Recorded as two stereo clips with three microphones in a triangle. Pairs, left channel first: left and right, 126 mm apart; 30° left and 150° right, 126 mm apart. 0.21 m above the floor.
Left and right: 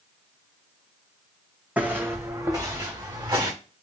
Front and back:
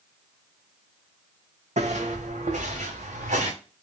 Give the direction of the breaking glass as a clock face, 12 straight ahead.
I don't hear breaking glass.